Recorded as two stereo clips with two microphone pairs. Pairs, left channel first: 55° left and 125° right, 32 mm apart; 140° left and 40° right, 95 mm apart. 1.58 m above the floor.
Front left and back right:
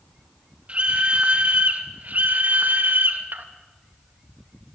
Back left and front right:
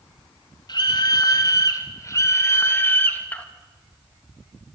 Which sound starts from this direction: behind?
A scream, at 0.7 s.